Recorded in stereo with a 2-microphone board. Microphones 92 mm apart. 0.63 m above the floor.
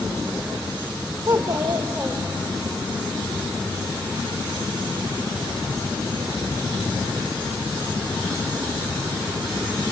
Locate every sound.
1.3 s a child speaking: 35° right (ahead or behind), 1.3 m; by 2.7 s 5° right (ahead or behind), 2 m